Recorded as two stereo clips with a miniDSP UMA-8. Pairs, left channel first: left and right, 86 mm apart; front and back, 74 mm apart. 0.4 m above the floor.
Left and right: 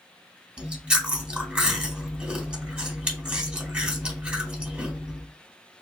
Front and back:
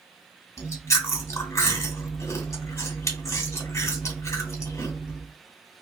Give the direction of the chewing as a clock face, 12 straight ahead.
1 o'clock.